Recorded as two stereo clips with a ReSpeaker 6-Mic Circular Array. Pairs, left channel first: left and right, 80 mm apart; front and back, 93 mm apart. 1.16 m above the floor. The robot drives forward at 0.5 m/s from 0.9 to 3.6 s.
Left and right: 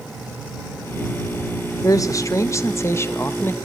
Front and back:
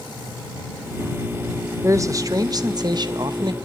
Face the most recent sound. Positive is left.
turn(degrees=150)